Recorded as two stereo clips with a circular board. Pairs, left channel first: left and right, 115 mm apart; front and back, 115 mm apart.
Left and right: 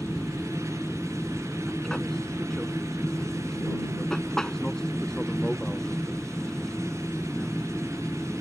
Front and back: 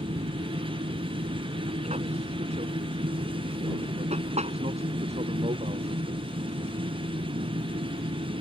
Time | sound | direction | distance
0.0 | an aircraft | 175° left | ?